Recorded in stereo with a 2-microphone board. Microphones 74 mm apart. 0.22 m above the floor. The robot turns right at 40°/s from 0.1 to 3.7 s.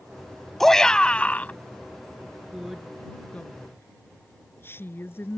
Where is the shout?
10° left; by 1.5 s 45° left.